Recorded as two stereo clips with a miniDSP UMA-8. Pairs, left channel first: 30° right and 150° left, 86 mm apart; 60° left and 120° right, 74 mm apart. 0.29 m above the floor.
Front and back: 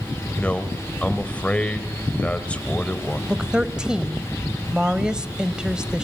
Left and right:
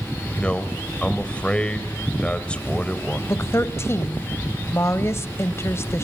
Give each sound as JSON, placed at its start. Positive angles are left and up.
{"t": 0.3, "sound": "a man speaking", "azimuth_deg": 20, "distance_m": 1.5}
{"t": 3.3, "sound": "a woman speaking", "azimuth_deg": 75, "distance_m": 1.1}